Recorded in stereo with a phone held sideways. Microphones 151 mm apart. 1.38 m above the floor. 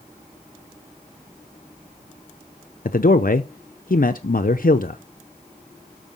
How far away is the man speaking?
About 0.8 m.